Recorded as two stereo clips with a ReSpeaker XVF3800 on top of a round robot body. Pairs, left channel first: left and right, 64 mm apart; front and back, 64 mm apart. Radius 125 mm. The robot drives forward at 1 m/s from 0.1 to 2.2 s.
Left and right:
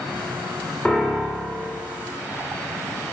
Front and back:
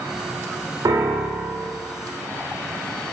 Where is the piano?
165° left, 1.1 m; by 1.8 s 170° left, 1.9 m.